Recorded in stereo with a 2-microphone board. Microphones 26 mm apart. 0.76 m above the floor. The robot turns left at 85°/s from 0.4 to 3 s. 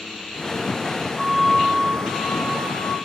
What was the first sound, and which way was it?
A flute, 155° right.